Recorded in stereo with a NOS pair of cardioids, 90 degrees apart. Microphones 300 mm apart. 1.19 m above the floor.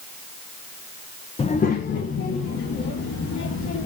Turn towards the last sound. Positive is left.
turn(degrees=65)